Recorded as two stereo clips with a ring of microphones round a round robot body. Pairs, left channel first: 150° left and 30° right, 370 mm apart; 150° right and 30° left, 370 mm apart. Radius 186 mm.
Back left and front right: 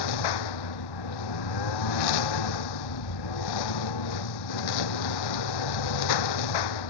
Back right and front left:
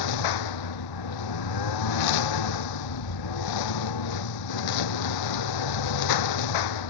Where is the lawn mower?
Straight behind.